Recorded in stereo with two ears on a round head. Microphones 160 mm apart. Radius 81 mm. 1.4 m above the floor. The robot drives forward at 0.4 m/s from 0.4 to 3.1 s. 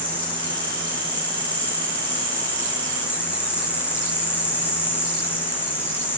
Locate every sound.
0.0 s an insect: 10° left (ahead or behind), 7 m